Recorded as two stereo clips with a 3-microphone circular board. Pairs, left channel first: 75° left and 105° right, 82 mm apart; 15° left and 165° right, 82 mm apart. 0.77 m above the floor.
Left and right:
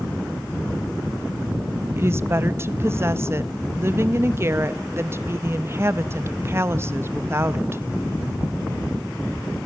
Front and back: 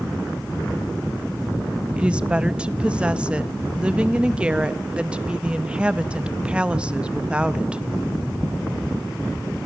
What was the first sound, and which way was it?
A woman speaking, 105° right.